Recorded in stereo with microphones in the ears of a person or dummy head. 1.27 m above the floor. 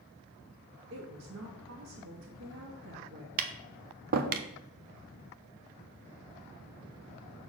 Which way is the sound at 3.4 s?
45° right (ahead or behind).